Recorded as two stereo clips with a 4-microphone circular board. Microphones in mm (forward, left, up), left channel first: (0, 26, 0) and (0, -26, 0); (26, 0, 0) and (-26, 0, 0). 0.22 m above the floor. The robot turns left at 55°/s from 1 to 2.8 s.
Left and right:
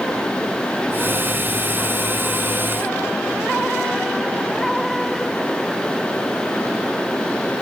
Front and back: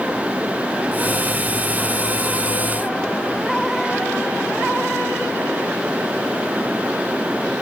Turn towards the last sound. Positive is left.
No sound to turn to.